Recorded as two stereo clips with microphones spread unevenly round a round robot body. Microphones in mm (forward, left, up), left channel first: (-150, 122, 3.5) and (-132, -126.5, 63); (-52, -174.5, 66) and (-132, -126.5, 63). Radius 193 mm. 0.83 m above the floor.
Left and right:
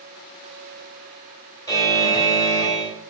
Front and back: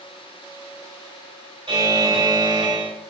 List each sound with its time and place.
1.7 s a buzzer: 170° left, 1.7 m